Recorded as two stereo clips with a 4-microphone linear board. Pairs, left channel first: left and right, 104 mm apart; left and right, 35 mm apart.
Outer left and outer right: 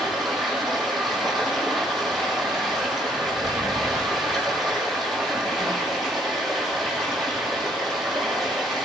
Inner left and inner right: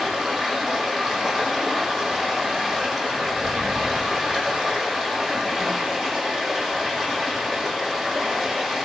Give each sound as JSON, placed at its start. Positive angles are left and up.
{"t": 0.0, "sound": "running water", "side_deg": 0, "distance_m": 6.5}